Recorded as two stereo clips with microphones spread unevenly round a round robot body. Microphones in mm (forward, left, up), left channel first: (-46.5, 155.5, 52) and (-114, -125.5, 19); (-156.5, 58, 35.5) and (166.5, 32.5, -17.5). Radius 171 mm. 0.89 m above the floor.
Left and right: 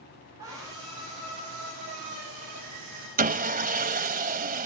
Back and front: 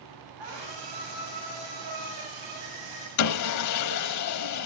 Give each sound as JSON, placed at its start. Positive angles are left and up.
{"t": 0.4, "sound": "a scream", "azimuth_deg": -25, "distance_m": 7.0}
{"t": 3.2, "sound": "sawing", "azimuth_deg": -165, "distance_m": 1.1}